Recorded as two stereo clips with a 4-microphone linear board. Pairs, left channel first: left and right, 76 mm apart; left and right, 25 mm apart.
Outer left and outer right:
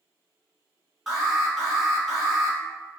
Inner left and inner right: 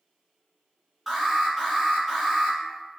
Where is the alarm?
Centre (ahead or behind), 1.0 m.